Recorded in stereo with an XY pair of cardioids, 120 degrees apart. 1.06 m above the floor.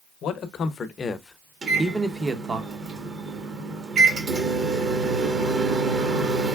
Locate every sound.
0.2 s a man speaking: 65° left, 0.8 m; by 2.6 s 30° right, 0.8 m
1.6 s a microwave: 40° right, 1.2 m